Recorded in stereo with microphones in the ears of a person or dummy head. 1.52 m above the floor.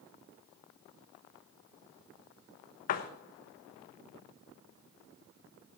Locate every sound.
2.9 s a door slam: 45° left (ahead or behind), 1.2 m